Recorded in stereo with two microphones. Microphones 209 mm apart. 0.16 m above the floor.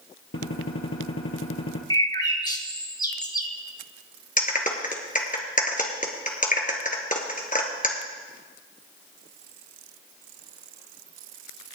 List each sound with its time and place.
0.3 s a gunshot: 70° left (ahead or behind), 1.8 m
1.9 s a bird: 20° left (ahead or behind), 1.2 m
4.4 s a clap: 40° left (ahead or behind), 1.9 m